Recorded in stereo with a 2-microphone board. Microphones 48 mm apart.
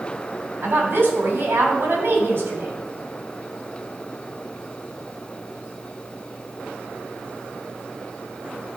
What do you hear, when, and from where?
0.6 s a woman speaking: 50° right (ahead or behind), 2.5 m